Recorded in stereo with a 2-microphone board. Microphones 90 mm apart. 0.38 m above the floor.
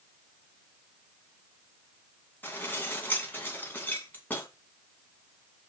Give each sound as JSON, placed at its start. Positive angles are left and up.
{"t": 2.4, "sound": "dishes clattering", "side_deg": 20, "distance_m": 2.0}